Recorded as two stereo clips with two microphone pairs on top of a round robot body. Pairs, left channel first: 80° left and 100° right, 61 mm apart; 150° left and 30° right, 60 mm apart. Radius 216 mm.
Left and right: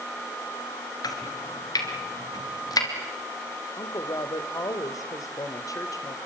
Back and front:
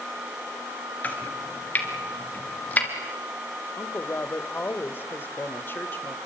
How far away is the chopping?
About 2.5 m.